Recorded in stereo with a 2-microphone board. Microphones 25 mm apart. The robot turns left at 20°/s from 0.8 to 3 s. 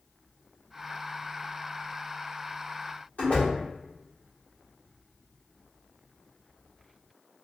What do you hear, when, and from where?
3.2 s a door slam: 65° left (ahead or behind), 1.6 m